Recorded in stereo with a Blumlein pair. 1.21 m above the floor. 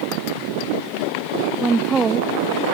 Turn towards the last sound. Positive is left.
turn(degrees=-20)